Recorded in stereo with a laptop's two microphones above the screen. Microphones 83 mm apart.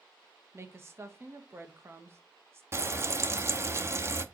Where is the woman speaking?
30° right (ahead or behind), 1.2 m.